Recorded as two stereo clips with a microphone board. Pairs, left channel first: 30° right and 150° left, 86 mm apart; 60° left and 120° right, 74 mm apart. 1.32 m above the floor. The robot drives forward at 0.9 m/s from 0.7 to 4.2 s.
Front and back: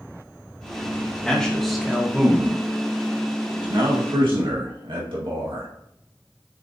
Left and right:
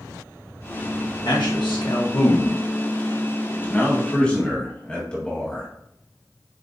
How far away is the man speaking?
About 1.8 m.